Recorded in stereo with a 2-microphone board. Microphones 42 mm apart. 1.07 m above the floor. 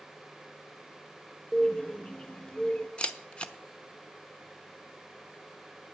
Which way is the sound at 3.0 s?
25° left (ahead or behind).